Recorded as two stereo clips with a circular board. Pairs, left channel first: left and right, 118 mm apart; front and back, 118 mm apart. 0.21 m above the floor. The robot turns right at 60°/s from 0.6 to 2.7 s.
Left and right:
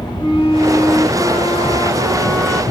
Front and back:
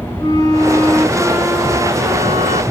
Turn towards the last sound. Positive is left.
turn(degrees=175)